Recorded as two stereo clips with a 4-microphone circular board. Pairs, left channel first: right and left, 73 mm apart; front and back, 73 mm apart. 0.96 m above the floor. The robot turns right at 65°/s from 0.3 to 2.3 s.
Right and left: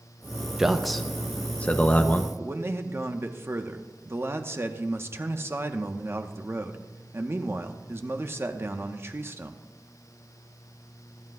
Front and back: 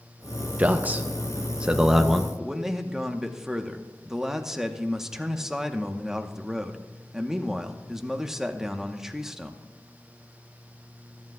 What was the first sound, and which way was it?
A man speaking, 160° left.